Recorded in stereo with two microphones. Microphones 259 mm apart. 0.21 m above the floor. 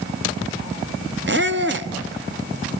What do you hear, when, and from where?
1.3 s a squeak: 45° right (ahead or behind), 0.9 m